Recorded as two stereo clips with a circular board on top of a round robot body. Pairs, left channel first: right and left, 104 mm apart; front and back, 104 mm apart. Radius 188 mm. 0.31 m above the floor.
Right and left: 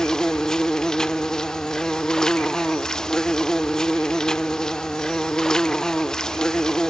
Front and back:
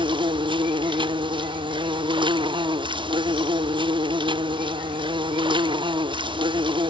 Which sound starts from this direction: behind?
An insect, at 0.0 s.